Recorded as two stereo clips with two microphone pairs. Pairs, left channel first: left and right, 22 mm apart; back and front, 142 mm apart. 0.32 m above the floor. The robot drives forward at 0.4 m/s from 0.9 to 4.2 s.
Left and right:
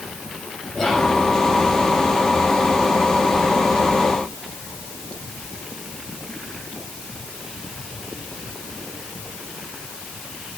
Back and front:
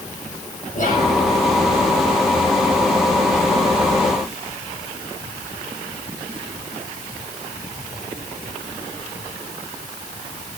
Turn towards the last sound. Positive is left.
turn(degrees=165)